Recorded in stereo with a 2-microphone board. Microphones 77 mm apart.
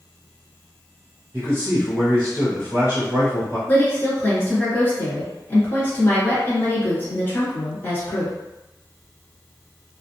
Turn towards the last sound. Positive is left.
turn(degrees=25)  # may be behind; listen again after turning